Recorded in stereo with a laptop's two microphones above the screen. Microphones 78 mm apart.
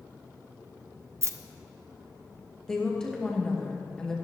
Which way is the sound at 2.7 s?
10° left (ahead or behind).